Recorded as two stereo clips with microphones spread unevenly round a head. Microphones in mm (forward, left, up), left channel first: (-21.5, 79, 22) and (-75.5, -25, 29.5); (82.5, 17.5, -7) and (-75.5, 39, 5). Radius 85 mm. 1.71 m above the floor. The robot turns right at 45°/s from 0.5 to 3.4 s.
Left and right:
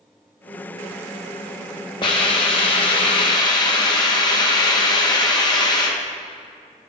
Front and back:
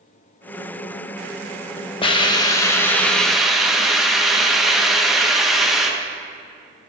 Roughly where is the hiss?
Ahead left.